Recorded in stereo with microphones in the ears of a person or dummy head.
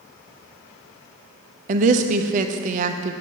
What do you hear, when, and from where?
1.7 s a woman speaking: 45° right (ahead or behind), 0.8 m